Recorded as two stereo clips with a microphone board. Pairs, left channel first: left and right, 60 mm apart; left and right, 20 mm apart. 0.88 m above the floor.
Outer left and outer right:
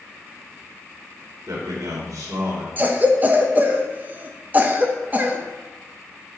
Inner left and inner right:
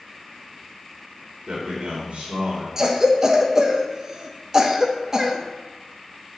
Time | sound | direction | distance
1.5 | a man speaking | 70° right (ahead or behind) | 2.5 m
2.8 | a cough | 30° right (ahead or behind) | 0.7 m